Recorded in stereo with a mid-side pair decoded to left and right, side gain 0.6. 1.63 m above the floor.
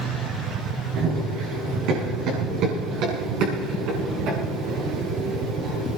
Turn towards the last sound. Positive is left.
turn(degrees=-65)